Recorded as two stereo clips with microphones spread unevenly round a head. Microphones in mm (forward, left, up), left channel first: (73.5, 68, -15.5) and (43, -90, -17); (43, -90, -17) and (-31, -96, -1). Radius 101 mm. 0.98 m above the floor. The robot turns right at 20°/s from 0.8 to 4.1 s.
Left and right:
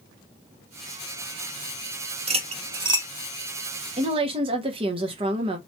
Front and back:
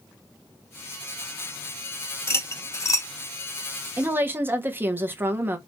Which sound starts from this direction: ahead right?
Cutlery clinking, at 2.3 s.